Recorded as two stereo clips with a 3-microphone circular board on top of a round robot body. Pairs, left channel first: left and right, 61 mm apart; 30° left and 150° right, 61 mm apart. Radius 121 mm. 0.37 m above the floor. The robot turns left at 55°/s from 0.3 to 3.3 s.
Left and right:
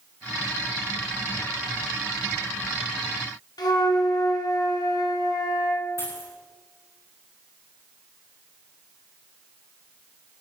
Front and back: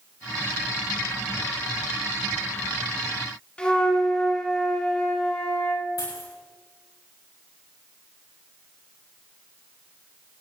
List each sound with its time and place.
3.6 s a flute: 105° left, 2 m
6.0 s a dropped coin: 50° left, 8.5 m